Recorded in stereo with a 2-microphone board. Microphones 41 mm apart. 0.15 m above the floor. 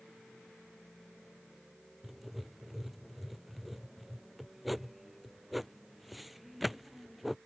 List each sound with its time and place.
2.0 s writing: 5° right (ahead or behind)